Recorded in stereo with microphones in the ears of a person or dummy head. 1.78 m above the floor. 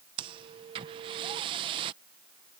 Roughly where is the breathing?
Right.